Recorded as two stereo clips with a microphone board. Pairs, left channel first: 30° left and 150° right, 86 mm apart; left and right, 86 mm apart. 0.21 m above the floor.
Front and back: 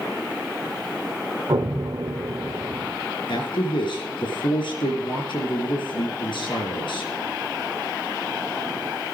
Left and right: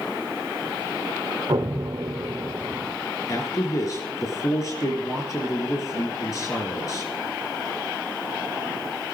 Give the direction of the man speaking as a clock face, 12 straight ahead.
10 o'clock.